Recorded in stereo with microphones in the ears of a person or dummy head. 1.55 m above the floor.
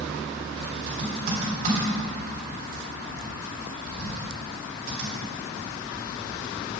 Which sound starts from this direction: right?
Typing on a keyboard, at 0.9 s.